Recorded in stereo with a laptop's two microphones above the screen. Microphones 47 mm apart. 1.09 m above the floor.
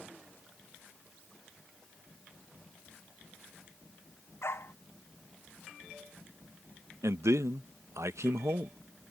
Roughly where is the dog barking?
Left.